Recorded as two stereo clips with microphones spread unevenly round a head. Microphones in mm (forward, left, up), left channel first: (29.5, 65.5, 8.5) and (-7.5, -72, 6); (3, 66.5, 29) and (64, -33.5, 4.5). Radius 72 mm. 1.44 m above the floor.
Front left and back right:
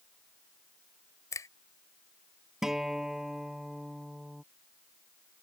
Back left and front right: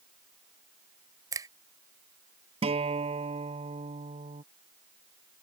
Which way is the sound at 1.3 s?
5° left.